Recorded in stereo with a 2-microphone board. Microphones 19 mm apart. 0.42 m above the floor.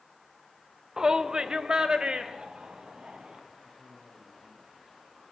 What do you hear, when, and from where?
1.0 s a shout: 30° right (ahead or behind), 0.8 m; by 3.4 s 55° right (ahead or behind), 3 m
3.6 s a man speaking: 5° left (ahead or behind), 5 m